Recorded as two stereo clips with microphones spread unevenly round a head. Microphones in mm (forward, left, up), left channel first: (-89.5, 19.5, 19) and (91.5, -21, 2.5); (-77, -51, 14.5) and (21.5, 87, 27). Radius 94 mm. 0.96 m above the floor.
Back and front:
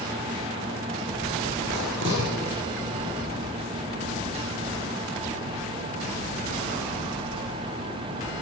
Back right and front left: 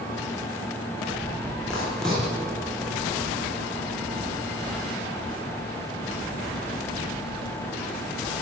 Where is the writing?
40° right, 8.5 m.